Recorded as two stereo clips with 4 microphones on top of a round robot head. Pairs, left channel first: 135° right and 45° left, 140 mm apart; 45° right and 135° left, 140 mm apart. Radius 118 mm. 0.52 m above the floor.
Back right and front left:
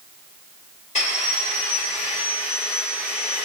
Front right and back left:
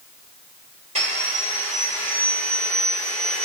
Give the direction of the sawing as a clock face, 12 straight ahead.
6 o'clock.